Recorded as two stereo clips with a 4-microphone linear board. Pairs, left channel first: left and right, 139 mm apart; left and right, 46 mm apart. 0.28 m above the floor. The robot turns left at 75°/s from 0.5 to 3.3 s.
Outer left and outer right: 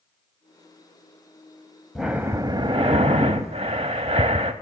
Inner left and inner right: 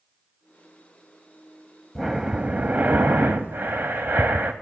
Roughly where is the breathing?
Ahead.